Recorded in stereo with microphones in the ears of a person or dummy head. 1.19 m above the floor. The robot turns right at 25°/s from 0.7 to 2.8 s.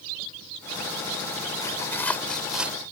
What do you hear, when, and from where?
1.6 s tearing paper: 25° left (ahead or behind); by 2.8 s 5° right (ahead or behind)